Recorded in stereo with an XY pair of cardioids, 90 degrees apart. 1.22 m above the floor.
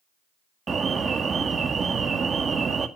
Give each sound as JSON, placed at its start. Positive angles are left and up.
{"t": 0.7, "sound": "an alarm", "azimuth_deg": -45, "distance_m": 1.9}